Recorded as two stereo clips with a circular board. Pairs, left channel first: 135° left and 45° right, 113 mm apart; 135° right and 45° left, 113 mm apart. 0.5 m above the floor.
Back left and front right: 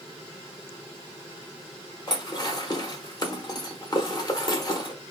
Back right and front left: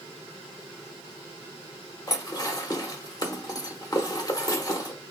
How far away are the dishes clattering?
About 1.0 m.